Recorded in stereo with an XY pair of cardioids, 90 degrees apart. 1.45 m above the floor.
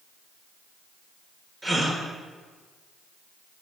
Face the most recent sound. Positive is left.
turn(degrees=-30)